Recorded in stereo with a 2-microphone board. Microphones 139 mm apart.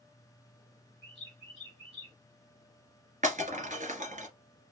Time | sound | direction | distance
1.0 | a bird | 40° right (ahead or behind) | 2.5 m
3.2 | breaking glass | 65° right (ahead or behind) | 1.8 m